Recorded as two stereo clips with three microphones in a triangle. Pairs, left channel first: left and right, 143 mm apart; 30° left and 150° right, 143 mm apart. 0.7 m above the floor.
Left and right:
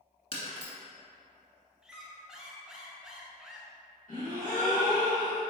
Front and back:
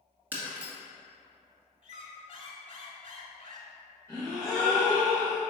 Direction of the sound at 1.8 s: 5° right.